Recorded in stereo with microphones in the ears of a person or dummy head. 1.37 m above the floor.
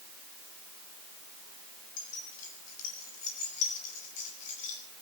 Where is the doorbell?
No doorbell in this recording.